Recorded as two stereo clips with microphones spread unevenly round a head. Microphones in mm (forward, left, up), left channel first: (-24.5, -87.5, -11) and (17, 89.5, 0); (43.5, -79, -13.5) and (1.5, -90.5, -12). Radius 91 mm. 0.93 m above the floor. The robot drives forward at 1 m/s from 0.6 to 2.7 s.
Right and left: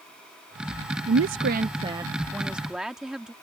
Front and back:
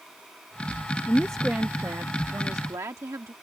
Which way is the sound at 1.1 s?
55° left.